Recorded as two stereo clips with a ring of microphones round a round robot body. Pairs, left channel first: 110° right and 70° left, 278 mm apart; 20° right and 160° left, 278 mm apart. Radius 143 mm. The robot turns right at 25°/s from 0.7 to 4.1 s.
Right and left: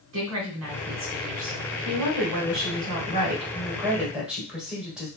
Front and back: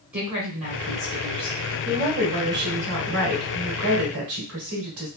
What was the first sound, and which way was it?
A woman speaking, 75° left.